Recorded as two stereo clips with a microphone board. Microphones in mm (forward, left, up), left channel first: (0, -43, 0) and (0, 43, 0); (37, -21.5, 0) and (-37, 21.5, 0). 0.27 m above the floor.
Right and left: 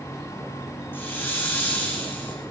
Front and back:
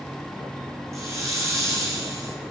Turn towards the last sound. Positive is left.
turn(degrees=-155)